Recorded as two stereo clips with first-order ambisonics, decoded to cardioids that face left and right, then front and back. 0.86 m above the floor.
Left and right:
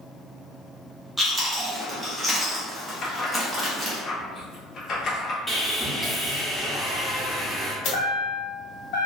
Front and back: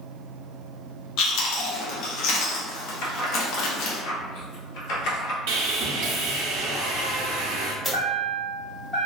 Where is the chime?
80° left, 1.3 m.